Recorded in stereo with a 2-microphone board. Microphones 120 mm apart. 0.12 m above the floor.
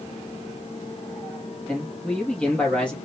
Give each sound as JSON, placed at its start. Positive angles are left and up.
{"t": 1.7, "sound": "a man speaking", "side_deg": 10, "distance_m": 2.5}